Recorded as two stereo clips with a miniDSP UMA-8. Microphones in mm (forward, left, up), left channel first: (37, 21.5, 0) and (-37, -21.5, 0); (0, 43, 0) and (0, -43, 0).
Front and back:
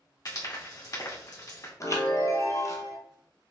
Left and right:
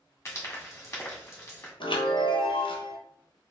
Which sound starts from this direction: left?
A chime, at 1.8 s.